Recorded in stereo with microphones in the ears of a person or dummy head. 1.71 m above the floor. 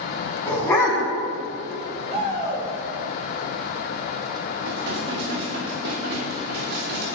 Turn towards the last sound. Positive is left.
turn(degrees=-60)  # may be behind; listen again after turning